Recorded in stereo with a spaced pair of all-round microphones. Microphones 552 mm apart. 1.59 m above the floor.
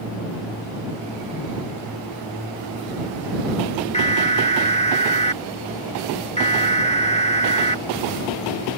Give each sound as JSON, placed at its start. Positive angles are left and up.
{"t": 3.9, "sound": "an alarm", "side_deg": 10}